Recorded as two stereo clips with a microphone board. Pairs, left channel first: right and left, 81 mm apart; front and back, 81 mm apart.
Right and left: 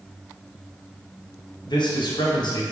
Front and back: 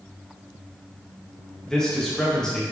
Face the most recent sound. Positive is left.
turn(degrees=-80)